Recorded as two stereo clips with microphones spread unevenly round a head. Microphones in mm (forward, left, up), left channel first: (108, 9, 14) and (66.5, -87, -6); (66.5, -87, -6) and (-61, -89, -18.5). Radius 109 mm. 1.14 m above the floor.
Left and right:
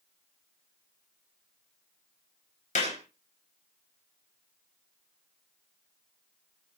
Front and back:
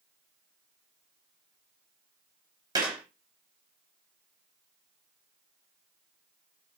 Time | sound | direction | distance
2.8 | a clap | 105° left | 4 m